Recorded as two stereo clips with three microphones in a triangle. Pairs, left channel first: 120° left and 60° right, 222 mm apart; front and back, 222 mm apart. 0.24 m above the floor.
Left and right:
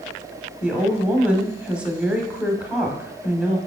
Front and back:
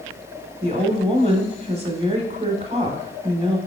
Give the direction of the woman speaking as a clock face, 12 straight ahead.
5 o'clock.